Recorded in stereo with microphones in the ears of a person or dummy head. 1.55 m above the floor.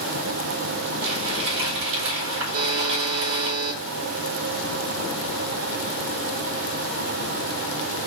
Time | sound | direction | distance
1.0 | crumpling | 75° right (ahead or behind) | 3.5 m
2.5 | a buzzer | 70° right (ahead or behind) | 2.5 m